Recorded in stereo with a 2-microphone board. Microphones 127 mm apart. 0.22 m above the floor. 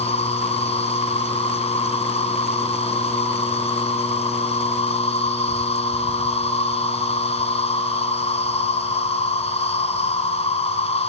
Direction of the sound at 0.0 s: 55° left (ahead or behind).